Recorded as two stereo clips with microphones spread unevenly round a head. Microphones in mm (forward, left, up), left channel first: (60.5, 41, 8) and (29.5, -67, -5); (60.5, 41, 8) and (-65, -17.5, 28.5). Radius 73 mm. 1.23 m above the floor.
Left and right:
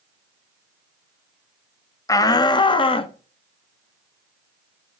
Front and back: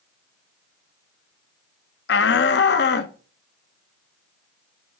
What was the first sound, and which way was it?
A shout, 10° left.